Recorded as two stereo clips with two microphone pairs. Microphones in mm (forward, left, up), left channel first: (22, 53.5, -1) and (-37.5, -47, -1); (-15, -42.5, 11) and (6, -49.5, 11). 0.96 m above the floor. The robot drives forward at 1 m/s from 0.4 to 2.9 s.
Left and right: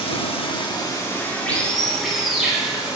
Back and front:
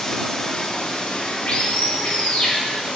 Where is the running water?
95° left, 1.1 m; by 3.0 s 155° left, 3 m.